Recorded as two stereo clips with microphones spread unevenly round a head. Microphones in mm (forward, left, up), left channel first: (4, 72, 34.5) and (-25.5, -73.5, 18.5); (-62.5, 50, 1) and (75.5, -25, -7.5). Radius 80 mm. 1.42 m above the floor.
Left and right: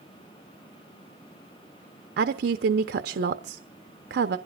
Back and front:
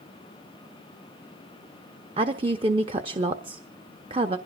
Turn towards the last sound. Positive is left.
turn(degrees=-90)